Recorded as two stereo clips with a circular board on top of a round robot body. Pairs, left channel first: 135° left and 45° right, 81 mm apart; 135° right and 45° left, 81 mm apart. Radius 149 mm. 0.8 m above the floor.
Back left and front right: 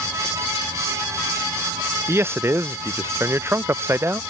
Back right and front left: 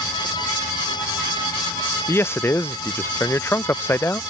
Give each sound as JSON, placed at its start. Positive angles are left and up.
{"t": 2.1, "sound": "a man speaking", "azimuth_deg": -90}